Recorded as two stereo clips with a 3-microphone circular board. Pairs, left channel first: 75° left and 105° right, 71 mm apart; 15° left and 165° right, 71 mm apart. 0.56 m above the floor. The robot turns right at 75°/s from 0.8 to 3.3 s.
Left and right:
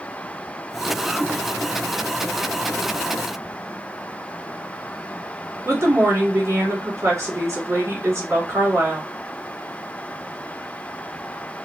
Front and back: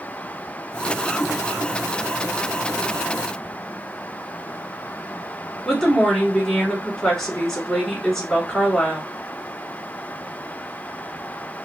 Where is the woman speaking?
60° right, 2 m.